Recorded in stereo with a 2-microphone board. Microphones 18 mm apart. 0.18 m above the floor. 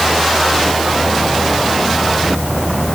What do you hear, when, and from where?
Only background noise.